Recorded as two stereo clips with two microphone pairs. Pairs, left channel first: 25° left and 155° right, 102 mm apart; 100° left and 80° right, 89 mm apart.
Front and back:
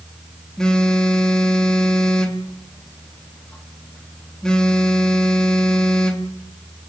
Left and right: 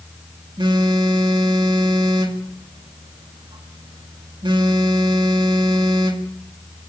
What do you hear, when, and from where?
0.6 s a phone buzzing: 60° right, 1.9 m